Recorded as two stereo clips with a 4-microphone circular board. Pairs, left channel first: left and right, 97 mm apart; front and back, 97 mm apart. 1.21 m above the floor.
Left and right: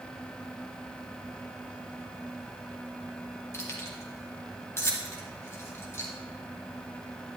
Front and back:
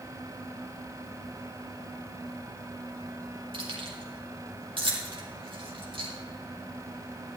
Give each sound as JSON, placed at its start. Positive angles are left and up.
{"t": 3.5, "sound": "keys jangling", "azimuth_deg": 155, "distance_m": 2.0}